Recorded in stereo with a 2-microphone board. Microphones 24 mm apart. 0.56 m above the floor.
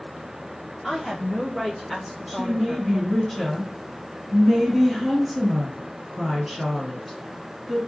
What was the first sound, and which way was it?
A woman speaking, 10° left (ahead or behind).